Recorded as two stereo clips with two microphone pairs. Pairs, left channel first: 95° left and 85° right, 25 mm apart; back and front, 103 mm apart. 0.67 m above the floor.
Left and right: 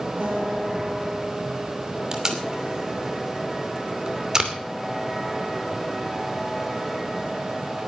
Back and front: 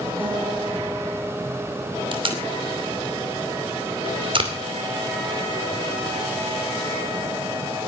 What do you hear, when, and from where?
0.2 s a guitar: 70° right, 8 m
2.1 s tape being pulled: 20° right, 2.5 m